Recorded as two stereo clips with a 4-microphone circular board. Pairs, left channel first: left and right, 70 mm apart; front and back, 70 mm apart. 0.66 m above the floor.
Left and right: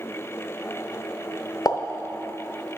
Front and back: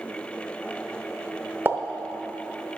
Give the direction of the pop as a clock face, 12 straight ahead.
8 o'clock.